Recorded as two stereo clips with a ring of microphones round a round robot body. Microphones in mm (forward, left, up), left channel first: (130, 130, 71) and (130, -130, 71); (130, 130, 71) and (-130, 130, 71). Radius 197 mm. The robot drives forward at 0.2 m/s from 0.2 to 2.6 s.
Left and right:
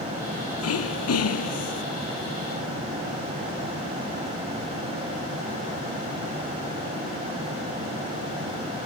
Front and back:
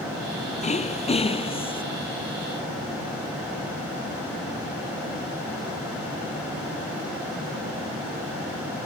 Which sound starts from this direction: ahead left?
Throat clearing, at 0.6 s.